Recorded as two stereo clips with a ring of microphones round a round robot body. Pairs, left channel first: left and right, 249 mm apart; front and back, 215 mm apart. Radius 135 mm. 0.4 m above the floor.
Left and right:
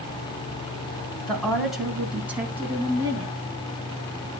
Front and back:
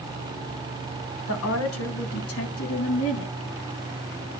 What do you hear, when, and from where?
1.3 s a woman speaking: 5° left, 3.5 m; by 3.3 s 15° right, 3.5 m